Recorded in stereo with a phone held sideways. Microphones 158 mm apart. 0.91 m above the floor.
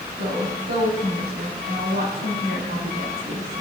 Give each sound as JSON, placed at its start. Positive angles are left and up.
{"t": 0.2, "sound": "a woman speaking", "side_deg": -80, "distance_m": 6.5}